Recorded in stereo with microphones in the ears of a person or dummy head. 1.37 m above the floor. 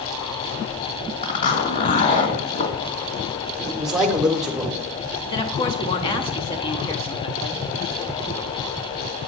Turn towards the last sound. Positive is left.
turn(degrees=30)  # may be behind; listen again after turning